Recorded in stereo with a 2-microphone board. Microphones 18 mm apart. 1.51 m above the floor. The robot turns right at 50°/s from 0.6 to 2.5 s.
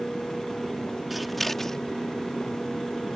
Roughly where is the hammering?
I don't hear hammering.